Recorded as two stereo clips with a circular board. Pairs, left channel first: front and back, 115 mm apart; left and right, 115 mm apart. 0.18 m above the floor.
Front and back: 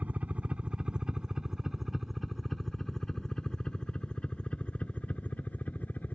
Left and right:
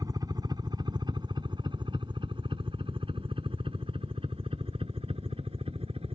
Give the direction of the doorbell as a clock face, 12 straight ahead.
I don't hear a doorbell.